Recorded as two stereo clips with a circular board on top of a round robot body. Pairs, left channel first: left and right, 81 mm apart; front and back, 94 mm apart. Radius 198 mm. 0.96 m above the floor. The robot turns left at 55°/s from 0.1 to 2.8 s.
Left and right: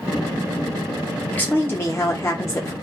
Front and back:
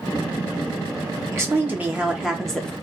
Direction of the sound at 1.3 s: 145° left.